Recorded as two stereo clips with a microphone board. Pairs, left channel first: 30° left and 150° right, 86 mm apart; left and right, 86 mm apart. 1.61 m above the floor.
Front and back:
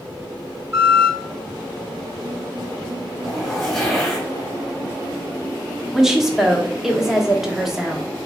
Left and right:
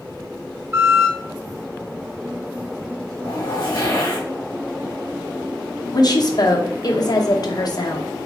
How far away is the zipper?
About 2.5 m.